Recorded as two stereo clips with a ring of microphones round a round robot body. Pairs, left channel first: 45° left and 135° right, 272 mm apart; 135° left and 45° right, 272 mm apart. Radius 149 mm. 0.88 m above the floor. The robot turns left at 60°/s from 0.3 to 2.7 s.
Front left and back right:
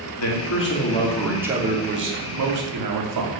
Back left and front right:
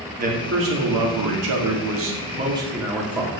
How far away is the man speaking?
About 2.5 m.